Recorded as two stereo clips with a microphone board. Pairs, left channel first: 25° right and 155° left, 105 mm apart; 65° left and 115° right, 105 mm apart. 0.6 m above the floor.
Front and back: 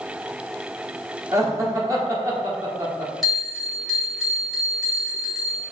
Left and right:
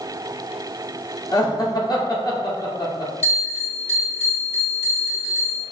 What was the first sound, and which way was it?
Laughter, 110° left.